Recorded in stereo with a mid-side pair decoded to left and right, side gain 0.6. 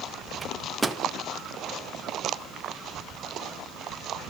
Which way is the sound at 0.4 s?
15° right.